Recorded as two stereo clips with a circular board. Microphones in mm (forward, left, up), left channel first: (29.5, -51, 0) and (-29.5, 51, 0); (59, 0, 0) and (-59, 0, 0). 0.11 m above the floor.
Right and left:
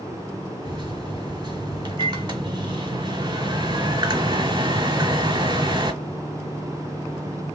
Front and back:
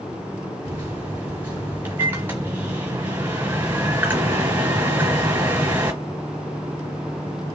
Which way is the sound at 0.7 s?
120° left.